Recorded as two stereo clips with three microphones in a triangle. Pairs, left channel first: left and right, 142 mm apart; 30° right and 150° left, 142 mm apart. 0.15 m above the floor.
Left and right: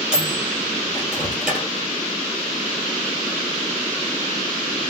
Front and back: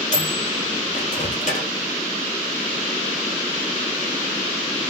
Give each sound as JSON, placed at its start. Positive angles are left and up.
{"t": 0.1, "sound": "a microwave", "azimuth_deg": -5, "distance_m": 3.0}